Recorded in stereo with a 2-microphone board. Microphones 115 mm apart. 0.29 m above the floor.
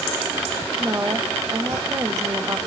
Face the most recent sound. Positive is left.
turn(degrees=-30)  # may be behind; listen again after turning